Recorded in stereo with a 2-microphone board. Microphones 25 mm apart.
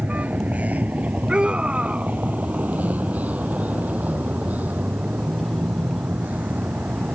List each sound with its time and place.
0.0 s a vehicle: 80° right; by 7.2 s 85° right
1.3 s a scream: 40° right (ahead or behind)